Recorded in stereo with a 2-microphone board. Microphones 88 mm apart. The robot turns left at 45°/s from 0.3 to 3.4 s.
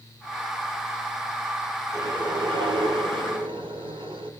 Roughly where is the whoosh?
Ahead right.